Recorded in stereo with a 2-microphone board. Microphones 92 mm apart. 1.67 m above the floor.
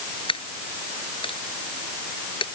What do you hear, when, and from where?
0.3 s a dropped coin: 75° left (ahead or behind)